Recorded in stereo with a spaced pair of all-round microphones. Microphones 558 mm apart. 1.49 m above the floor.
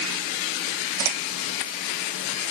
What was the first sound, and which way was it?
Only background noise.